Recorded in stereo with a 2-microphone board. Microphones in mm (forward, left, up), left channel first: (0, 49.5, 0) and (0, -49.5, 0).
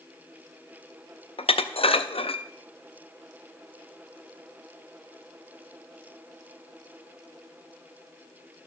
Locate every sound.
1.4 s dishes clattering: 85° left, 0.5 m